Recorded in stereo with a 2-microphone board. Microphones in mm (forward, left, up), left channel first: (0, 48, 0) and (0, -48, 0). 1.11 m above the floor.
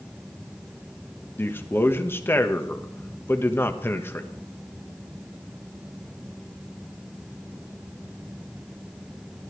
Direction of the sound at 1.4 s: 25° left (ahead or behind).